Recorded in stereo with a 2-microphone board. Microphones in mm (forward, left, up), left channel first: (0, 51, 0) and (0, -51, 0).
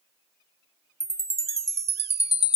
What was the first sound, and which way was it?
A chime, 85° right.